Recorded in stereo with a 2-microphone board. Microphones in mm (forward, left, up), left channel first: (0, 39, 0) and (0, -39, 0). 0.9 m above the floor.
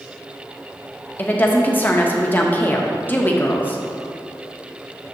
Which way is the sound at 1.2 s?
25° left (ahead or behind).